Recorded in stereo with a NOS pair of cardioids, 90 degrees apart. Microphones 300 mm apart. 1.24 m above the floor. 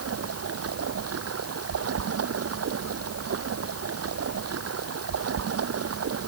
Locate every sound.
0.0 s running water: 55° right